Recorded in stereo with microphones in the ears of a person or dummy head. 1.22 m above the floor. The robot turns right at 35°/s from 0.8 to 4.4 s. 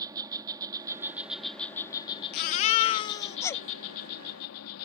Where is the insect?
20° right; by 4.9 s 105° left.